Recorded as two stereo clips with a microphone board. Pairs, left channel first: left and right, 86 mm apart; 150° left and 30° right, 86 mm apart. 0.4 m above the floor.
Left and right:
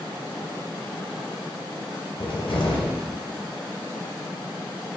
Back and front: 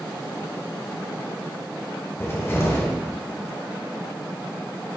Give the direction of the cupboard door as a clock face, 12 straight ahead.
9 o'clock.